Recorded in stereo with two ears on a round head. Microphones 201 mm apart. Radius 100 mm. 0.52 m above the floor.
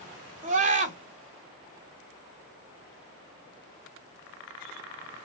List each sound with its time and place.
0.4 s a scream: 35° right (ahead or behind), 1.8 m